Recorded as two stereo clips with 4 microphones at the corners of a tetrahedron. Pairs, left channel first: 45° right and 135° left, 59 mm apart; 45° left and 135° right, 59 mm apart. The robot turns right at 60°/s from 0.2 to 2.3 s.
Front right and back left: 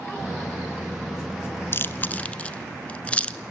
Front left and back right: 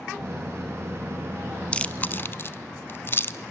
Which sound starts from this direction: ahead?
Chewing, at 1.7 s.